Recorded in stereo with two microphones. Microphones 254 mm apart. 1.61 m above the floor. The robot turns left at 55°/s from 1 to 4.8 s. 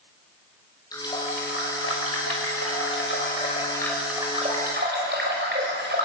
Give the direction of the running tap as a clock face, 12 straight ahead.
7 o'clock.